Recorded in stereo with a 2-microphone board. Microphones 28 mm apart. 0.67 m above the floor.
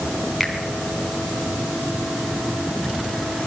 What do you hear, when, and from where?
0.4 s a finger snap: 10° right (ahead or behind), 4.5 m